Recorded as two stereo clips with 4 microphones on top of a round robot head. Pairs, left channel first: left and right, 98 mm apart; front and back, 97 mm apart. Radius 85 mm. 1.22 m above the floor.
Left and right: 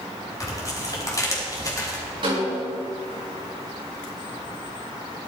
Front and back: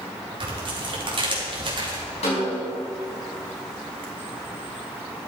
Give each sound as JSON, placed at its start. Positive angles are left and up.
{"t": 0.4, "sound": "tearing paper", "azimuth_deg": 145, "distance_m": 3.0}
{"t": 2.2, "sound": "a snare drum", "azimuth_deg": -35, "distance_m": 5.5}